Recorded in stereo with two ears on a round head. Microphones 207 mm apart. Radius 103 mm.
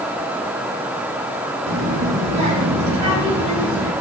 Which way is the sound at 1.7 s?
65° right (ahead or behind).